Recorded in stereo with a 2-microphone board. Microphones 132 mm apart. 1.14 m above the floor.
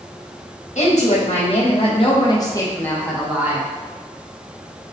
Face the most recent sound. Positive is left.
turn(degrees=-20)  # may be behind; listen again after turning